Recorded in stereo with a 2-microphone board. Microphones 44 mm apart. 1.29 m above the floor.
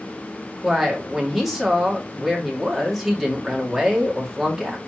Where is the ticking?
I don't hear ticking.